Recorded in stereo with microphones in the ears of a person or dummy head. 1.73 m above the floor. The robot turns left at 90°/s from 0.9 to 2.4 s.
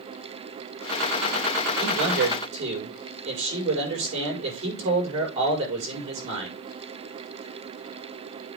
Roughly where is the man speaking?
Right.